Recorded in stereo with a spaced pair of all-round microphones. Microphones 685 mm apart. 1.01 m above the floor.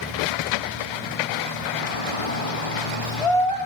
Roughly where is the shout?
Left.